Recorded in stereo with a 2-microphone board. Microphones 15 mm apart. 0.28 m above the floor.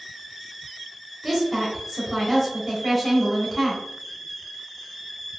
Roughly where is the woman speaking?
Centre.